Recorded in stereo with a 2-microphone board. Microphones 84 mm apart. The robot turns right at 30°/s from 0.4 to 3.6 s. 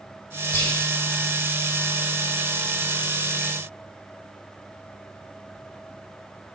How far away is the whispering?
About 1.8 m.